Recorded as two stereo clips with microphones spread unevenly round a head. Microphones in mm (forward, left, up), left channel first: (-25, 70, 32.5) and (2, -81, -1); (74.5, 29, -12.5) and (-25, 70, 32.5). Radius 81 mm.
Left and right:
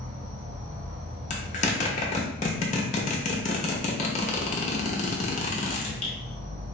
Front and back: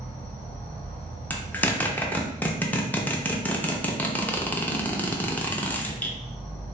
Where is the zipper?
65° left, 0.7 m.